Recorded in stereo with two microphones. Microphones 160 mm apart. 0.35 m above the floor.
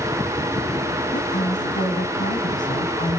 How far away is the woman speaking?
About 2.5 m.